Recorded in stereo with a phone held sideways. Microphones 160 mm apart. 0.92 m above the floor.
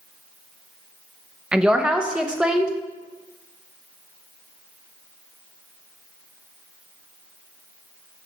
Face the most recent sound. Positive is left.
turn(degrees=-5)  # may be behind; listen again after turning